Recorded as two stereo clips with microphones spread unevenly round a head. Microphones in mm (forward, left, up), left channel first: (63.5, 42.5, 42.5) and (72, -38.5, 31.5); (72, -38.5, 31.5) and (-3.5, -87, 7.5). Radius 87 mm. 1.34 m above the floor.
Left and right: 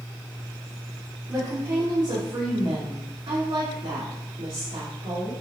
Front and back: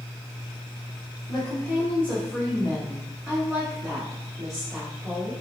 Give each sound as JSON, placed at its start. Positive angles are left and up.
{"t": 1.3, "sound": "a woman speaking", "azimuth_deg": -20, "distance_m": 0.9}